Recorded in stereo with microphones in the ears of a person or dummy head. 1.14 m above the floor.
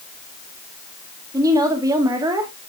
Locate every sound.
1.3 s a woman speaking: 20° right (ahead or behind), 1.7 m